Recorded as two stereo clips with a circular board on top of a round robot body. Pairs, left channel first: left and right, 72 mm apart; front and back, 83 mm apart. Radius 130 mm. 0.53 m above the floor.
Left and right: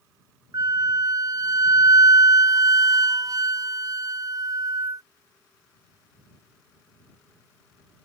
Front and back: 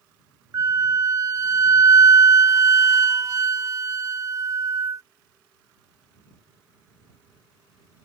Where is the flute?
125° right.